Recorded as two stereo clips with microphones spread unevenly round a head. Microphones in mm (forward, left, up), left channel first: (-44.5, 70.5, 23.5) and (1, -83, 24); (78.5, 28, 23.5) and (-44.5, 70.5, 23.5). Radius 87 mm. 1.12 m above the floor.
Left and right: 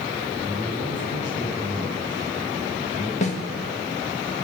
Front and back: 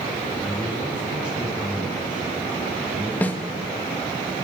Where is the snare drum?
60° left, 1.9 m.